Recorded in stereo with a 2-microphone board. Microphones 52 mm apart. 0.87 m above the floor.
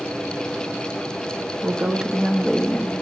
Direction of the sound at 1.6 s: 30° right (ahead or behind).